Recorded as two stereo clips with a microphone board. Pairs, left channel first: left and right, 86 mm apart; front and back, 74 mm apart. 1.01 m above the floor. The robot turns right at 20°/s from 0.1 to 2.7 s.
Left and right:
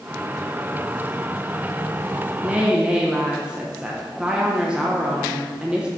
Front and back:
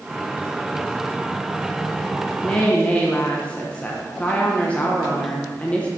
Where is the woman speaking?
40° right, 0.7 m; by 5.9 s 35° right, 0.7 m.